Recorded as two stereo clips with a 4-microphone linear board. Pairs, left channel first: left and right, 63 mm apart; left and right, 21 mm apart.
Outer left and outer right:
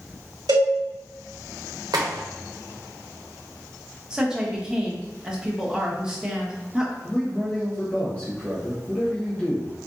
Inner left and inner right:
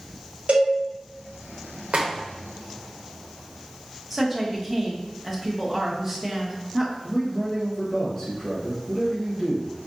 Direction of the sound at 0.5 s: 80° right.